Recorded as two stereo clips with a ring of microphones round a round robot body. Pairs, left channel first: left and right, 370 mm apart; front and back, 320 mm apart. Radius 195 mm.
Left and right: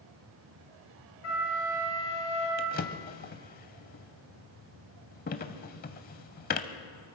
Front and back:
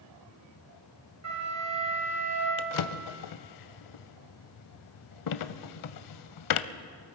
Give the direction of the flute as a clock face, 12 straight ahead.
7 o'clock.